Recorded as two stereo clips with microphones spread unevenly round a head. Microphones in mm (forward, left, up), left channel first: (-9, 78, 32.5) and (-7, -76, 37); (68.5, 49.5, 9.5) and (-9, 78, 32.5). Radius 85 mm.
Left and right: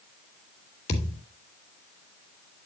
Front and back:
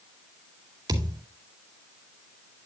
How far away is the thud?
About 2 m.